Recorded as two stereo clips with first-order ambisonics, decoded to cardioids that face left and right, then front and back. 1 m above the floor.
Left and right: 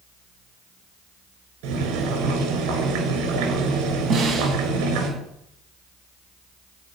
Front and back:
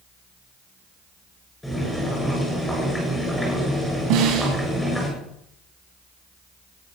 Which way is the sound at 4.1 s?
150° right.